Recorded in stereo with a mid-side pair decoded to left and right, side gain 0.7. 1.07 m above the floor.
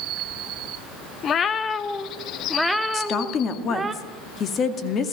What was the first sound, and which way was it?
A cat meowing, 40° left.